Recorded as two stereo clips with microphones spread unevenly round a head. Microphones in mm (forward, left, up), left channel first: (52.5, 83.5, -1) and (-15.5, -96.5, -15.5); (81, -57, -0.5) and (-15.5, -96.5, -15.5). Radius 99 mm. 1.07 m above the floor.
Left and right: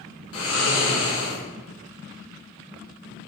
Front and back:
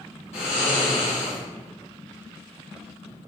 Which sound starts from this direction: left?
Snoring, at 0.3 s.